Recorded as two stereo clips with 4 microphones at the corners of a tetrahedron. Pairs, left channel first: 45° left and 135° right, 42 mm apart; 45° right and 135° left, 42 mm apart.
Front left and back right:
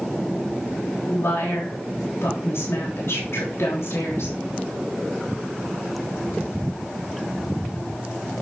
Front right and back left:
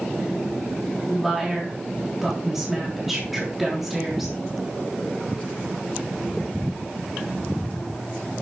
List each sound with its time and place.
1.1 s a woman speaking: 50° left, 3.5 m